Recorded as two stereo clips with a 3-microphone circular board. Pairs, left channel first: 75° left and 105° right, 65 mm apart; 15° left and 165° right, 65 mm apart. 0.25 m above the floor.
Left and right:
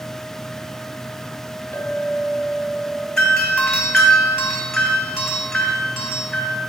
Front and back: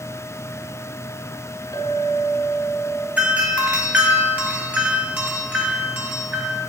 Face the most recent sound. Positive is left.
turn(degrees=155)